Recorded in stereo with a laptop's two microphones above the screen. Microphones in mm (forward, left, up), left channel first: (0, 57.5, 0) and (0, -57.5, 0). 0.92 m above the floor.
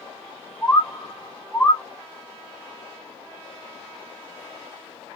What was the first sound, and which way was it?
A bird, 10° left (ahead or behind).